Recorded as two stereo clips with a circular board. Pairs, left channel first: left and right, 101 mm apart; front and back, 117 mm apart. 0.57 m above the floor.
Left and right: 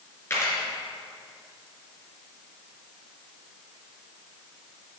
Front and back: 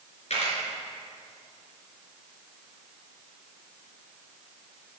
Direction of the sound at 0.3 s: 25° left.